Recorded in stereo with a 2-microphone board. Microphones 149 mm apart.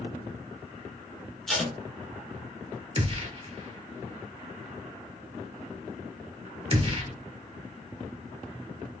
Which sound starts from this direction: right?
A gunshot, at 3.0 s.